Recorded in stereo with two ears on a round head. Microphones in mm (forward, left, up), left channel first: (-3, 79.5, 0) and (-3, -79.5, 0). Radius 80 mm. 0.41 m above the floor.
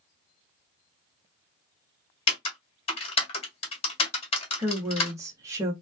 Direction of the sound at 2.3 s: 35° left (ahead or behind).